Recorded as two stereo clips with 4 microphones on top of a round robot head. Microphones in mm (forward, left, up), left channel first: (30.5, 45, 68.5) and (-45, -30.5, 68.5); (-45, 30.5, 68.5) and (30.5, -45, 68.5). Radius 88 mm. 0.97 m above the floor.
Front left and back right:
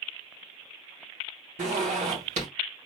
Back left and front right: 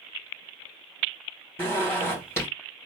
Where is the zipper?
160° right, 2 m.